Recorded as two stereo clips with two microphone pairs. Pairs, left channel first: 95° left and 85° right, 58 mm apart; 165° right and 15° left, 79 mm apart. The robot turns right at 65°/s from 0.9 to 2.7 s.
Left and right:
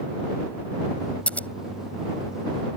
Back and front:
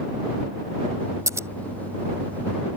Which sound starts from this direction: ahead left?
Scissors, at 1.3 s.